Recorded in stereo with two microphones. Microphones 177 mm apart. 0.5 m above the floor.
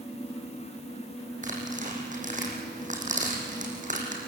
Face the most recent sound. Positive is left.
turn(degrees=-45)  # may be behind; listen again after turning